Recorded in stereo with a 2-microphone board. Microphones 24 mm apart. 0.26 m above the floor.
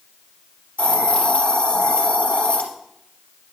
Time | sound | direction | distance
0.8 | a hiss | 70° left (ahead or behind) | 3 m